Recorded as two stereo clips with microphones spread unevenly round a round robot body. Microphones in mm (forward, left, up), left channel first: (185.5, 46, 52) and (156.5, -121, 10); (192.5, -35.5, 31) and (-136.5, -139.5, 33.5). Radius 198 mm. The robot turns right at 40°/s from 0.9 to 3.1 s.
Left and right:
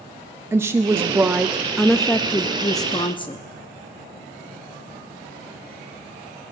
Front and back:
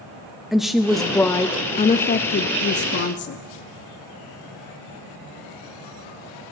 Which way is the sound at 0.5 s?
75° right.